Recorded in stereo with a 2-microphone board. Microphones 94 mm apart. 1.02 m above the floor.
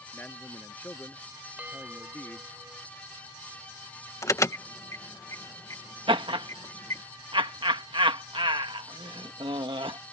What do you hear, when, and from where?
0.1 s a man speaking: 20° left (ahead or behind)
1.6 s a bell: 15° right (ahead or behind)
4.2 s an alarm: 35° left (ahead or behind)
6.1 s laughter: 65° right (ahead or behind)